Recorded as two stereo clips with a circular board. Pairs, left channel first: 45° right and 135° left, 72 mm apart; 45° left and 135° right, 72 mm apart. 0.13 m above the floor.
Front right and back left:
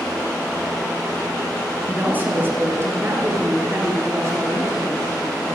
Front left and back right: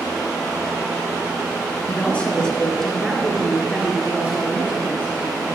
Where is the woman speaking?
90° left, 1.4 m; by 5.4 s 170° left, 2.5 m.